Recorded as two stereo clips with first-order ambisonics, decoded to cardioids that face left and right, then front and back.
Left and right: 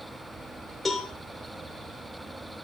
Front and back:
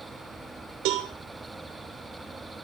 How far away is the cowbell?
About 3 m.